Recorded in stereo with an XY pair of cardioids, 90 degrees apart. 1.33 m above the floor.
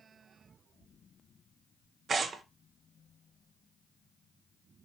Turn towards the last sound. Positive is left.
turn(degrees=-50)